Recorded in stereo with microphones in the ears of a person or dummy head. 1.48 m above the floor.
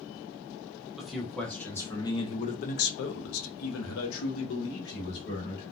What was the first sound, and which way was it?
A man speaking, centre (ahead or behind).